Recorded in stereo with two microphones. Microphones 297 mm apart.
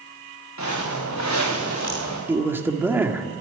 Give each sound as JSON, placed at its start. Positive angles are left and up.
{"t": 0.6, "sound": "footsteps", "side_deg": 70, "distance_m": 5.5}
{"t": 2.3, "sound": "a man speaking", "side_deg": -10, "distance_m": 1.5}